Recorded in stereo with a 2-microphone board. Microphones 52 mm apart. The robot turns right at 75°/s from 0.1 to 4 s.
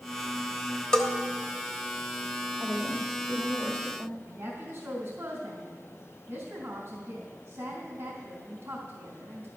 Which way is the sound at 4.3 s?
55° right (ahead or behind).